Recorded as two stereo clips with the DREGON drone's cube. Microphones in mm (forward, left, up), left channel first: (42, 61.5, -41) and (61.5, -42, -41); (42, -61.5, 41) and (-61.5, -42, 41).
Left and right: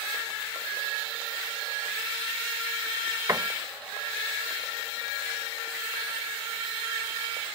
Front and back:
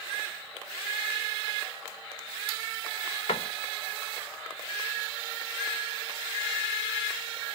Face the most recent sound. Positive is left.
turn(degrees=-25)